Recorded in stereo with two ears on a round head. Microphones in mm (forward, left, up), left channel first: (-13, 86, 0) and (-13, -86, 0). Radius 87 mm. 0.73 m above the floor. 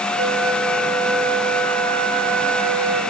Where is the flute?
75° right (ahead or behind), 3 m.